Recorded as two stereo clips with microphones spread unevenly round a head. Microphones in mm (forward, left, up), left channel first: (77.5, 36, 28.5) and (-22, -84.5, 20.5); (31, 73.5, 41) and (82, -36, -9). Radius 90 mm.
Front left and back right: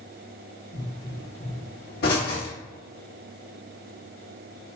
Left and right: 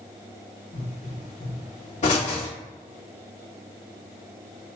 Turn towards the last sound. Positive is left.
turn(degrees=85)